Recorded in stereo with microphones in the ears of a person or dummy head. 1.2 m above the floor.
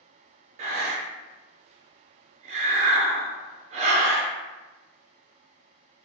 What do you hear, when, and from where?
0.6 s breathing: 35° right (ahead or behind), 0.5 m